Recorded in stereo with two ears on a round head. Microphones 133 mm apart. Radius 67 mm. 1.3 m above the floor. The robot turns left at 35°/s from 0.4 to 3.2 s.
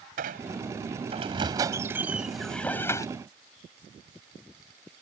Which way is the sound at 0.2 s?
110° right.